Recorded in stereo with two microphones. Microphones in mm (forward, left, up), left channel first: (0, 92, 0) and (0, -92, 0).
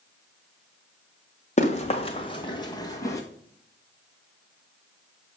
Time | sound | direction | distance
1.6 | running footsteps | 35° left (ahead or behind) | 1.9 m